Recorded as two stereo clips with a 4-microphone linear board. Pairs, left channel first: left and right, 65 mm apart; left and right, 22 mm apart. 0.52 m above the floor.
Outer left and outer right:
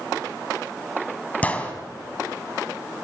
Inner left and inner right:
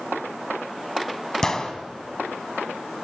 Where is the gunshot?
20° left (ahead or behind), 3.5 m.